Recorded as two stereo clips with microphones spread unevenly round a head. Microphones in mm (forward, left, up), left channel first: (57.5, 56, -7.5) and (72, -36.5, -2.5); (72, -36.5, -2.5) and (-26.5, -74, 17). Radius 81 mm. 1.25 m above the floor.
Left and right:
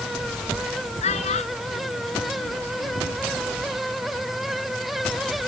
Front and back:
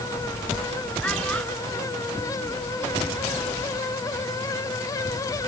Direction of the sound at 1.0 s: 105° left.